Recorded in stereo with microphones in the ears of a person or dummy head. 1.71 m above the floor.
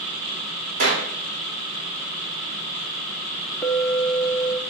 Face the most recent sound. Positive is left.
turn(degrees=0)  # may be behind; listen again after turning